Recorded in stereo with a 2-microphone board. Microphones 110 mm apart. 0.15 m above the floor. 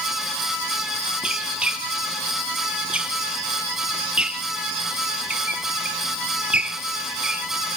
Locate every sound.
1.2 s a squeak: 10° right (ahead or behind), 0.8 m